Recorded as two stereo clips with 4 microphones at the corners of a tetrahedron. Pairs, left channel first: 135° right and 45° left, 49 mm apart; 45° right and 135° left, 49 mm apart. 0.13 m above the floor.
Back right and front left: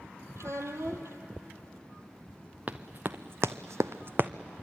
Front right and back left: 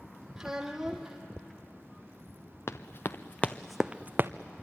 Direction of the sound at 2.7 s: 10° right.